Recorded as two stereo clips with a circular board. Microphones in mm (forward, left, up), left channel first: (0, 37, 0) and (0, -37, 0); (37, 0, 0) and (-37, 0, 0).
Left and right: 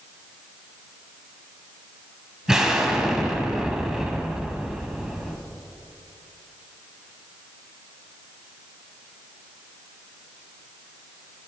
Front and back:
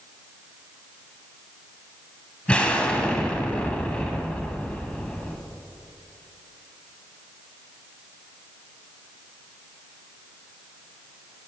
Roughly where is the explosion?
Ahead right.